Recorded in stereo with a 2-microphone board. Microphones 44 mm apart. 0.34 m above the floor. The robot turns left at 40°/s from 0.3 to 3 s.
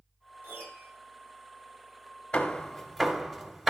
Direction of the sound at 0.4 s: 50° right (ahead or behind).